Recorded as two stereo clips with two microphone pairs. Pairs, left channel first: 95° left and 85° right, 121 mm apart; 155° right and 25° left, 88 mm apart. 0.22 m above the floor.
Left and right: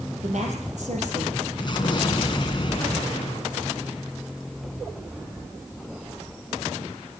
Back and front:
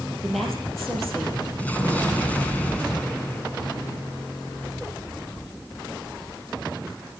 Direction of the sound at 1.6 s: 135° left.